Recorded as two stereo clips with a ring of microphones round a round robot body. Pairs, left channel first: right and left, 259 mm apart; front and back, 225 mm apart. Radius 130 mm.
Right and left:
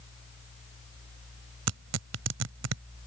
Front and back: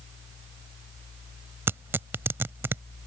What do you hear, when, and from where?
1.7 s tearing paper: 100° left